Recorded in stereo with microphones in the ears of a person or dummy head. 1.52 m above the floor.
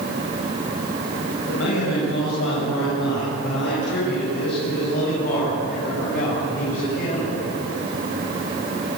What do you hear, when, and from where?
1.5 s a man speaking: 80° left, 7.5 m; by 7.4 s 35° left (ahead or behind), 8 m